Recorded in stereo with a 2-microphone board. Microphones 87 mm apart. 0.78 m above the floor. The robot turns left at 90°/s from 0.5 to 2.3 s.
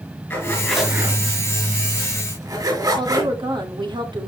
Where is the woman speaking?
65° right (ahead or behind), 2.5 m.